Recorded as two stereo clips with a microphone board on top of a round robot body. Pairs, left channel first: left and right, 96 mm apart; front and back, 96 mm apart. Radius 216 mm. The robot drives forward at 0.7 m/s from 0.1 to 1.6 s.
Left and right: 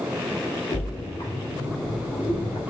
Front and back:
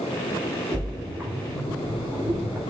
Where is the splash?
105° left, 1.7 m; by 2.6 s 125° left, 1.9 m.